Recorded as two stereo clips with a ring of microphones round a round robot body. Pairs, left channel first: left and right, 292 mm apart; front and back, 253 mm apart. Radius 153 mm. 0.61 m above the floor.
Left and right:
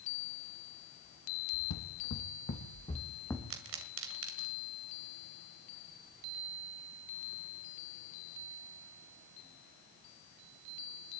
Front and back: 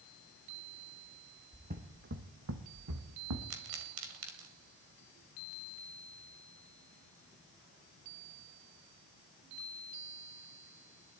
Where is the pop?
135° right, 2 m.